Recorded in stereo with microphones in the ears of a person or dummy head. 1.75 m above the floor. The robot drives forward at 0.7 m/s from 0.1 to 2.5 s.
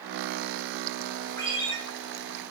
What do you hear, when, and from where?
1.4 s a ringtone: 15° left (ahead or behind), 4 m